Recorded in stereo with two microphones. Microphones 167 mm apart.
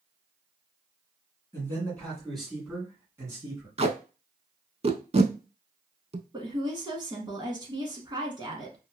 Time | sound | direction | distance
1.5 | a man speaking | 15° left (ahead or behind) | 1.7 m
3.8 | tape being pulled | 40° right (ahead or behind) | 0.5 m
6.3 | a woman speaking | 25° right (ahead or behind) | 1.1 m